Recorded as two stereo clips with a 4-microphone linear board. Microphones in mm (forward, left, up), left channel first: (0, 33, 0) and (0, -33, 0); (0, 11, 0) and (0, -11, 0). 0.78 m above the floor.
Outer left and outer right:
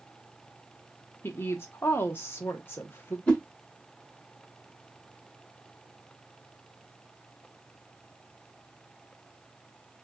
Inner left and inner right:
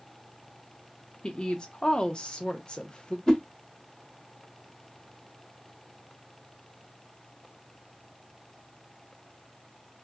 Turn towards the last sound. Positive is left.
turn(degrees=20)  # may be behind; listen again after turning